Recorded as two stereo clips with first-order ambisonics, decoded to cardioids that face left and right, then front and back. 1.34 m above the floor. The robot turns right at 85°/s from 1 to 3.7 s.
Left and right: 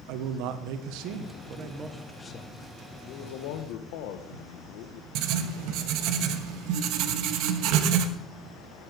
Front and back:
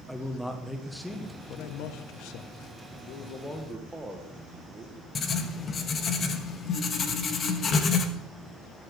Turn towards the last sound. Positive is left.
turn(degrees=-65)